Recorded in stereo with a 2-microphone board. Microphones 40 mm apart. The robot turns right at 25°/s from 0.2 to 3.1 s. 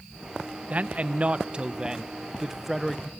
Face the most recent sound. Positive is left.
turn(degrees=0)